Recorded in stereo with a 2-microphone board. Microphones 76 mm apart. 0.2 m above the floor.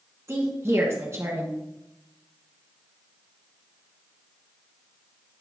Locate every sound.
0.3 s a woman speaking: 40° right (ahead or behind), 1.9 m